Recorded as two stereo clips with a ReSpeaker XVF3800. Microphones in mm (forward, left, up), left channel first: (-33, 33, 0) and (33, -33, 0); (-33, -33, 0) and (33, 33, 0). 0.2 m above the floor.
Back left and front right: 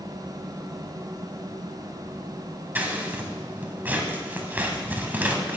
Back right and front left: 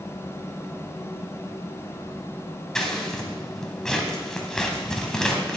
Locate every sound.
2.8 s scissors: 65° right, 1.1 m